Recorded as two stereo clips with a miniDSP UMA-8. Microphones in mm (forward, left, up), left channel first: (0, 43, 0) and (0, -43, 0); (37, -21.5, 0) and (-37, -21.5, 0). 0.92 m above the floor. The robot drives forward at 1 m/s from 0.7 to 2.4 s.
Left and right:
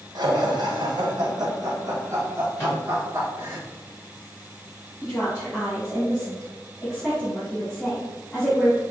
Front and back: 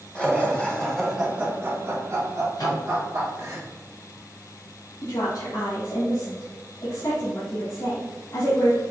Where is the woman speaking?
25° left, 1.8 m.